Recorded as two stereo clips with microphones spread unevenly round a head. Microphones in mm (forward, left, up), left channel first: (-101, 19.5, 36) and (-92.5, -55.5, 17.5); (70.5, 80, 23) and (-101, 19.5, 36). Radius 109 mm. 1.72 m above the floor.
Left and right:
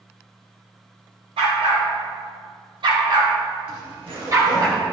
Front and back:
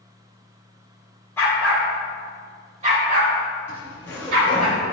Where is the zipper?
60° right, 3 m.